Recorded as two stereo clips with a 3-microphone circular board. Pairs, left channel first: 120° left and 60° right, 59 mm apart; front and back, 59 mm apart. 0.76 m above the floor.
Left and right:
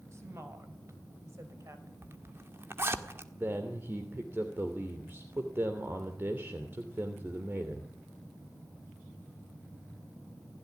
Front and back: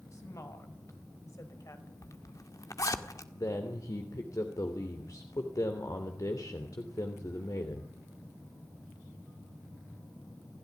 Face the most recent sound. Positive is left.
turn(degrees=-15)